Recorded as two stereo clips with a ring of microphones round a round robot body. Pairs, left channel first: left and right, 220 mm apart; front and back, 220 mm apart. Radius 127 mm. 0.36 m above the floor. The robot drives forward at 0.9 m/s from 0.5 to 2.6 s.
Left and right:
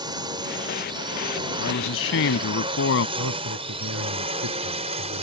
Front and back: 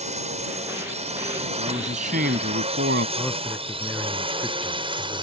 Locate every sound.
0.0 s a drone: 150° right; by 5.2 s 130° right
1.6 s a man speaking: 115° left; by 3.1 s 130° left
3.2 s a man speaking: 90° right